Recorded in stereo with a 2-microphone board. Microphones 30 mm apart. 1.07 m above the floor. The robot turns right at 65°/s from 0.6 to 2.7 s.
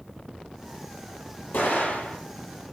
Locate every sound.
1.5 s an explosion: 85° left, 7 m; by 2.2 s 130° left, 7 m